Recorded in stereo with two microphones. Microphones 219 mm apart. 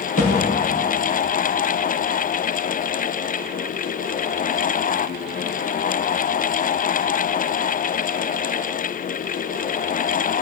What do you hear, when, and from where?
0.2 s a thud: 80° left, 4.5 m